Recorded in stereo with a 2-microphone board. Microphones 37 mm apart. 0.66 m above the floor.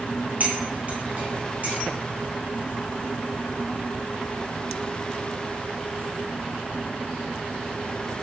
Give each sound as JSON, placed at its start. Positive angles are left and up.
{"t": 0.4, "sound": "cutlery clinking", "side_deg": -45, "distance_m": 2.5}